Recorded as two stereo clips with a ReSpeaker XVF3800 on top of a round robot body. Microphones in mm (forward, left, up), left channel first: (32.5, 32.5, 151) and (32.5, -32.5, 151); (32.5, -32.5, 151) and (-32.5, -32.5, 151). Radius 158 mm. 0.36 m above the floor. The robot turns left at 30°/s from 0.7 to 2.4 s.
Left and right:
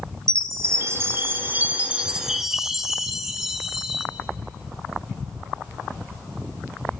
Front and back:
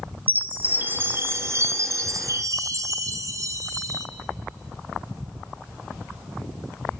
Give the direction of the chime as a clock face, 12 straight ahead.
4 o'clock.